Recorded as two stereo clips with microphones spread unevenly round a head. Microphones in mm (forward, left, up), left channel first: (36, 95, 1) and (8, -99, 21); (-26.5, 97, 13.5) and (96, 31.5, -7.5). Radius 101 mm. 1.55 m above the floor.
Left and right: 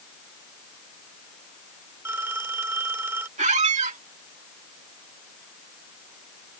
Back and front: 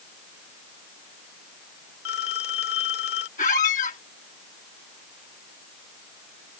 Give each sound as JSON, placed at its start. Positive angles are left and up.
{"t": 2.0, "sound": "a phone ringing", "azimuth_deg": 180}
{"t": 3.4, "sound": "a squeak", "azimuth_deg": -155}